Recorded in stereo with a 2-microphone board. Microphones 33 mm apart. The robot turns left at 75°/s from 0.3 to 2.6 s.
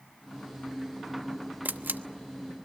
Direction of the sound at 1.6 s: 70° right (ahead or behind).